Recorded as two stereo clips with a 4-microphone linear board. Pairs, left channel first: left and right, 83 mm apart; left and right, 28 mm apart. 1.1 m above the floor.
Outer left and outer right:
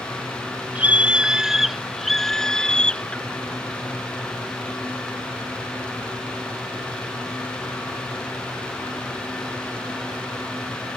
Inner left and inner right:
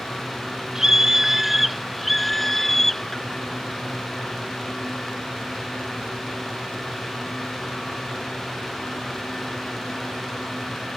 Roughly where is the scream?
Centre.